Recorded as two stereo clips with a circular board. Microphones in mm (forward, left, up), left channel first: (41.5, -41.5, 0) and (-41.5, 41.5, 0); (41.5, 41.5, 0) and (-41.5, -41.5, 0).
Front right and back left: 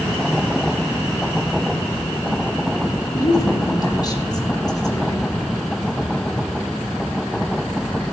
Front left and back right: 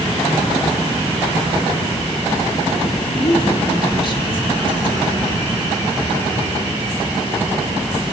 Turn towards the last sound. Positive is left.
turn(degrees=5)